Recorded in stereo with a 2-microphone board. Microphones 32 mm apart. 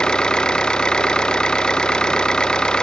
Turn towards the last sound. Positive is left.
turn(degrees=25)  # may be behind; listen again after turning